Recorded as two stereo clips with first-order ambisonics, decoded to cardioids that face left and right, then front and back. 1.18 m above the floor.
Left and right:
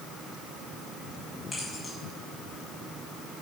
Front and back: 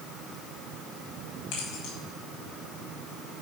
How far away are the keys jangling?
About 5.5 m.